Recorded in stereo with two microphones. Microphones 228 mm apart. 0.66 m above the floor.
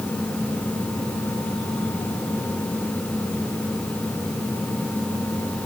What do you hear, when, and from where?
Only background noise.